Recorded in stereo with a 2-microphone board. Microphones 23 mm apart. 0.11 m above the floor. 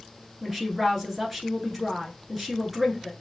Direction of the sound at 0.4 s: Centre (ahead or behind).